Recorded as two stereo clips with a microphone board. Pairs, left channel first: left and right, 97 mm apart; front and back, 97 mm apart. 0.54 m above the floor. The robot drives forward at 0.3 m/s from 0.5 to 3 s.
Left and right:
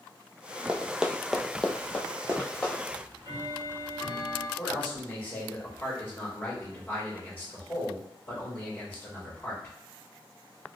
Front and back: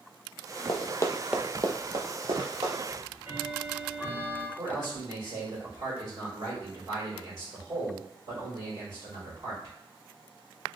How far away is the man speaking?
About 1.7 m.